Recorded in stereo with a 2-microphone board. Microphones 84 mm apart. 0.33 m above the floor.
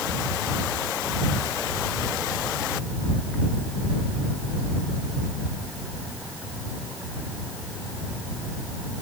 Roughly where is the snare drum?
I don't hear a snare drum.